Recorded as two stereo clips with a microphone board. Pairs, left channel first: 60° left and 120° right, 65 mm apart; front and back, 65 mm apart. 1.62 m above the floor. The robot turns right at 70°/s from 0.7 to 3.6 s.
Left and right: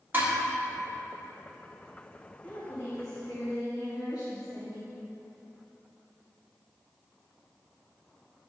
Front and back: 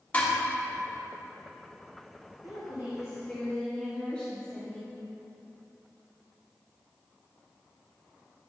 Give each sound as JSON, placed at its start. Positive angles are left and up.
{"t": 0.1, "sound": "dishes clattering", "azimuth_deg": -65, "distance_m": 1.4}
{"t": 2.4, "sound": "a woman speaking", "azimuth_deg": -5, "distance_m": 1.8}